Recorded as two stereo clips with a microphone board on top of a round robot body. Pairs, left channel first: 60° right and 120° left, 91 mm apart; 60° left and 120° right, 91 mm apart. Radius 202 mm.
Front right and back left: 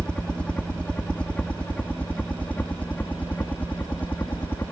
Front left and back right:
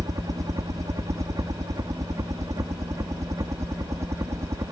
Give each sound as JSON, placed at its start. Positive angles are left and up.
{"t": 0.0, "sound": "a helicopter", "azimuth_deg": -135}